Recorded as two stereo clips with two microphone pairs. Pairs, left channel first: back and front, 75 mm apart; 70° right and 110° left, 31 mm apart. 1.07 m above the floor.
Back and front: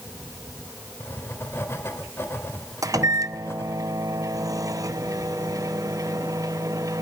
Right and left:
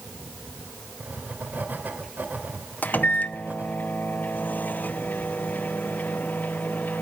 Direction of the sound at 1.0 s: 120° left.